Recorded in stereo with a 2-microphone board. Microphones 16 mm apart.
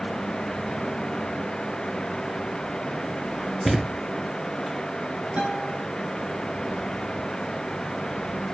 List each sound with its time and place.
3.6 s a thud: 25° right (ahead or behind), 1.6 m
5.4 s a guitar: 65° right (ahead or behind), 3.5 m